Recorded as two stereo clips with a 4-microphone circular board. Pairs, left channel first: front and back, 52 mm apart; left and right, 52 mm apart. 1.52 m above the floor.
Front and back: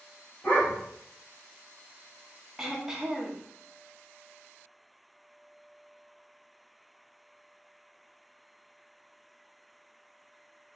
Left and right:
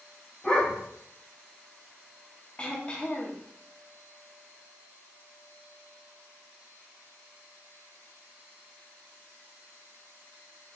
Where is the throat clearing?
115° left, 0.8 m.